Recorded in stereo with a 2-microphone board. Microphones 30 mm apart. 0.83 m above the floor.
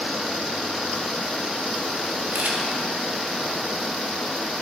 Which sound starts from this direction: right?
A camera shutter, at 2.3 s.